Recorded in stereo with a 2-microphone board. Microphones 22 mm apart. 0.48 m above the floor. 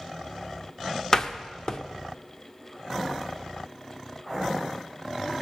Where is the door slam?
35° left (ahead or behind), 0.8 m.